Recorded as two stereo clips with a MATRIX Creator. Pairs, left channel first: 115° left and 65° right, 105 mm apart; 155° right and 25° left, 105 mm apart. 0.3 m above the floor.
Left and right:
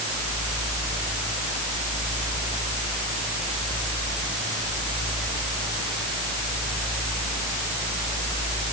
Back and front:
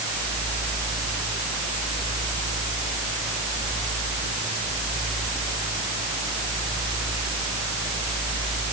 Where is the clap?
I don't hear a clap.